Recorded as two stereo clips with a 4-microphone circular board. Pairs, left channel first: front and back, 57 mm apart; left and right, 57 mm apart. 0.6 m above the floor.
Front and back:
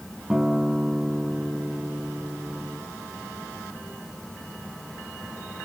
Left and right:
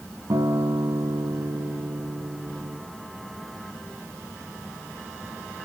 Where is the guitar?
95° right, 2 m.